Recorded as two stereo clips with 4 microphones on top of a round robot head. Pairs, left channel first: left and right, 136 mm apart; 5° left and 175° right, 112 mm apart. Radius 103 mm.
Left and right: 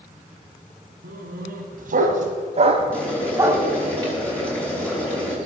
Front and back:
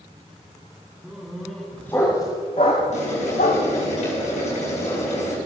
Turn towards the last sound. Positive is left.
turn(degrees=10)